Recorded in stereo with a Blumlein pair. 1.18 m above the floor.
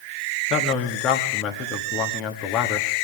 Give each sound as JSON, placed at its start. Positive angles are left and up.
{"t": 0.5, "sound": "a man speaking", "azimuth_deg": 35, "distance_m": 1.7}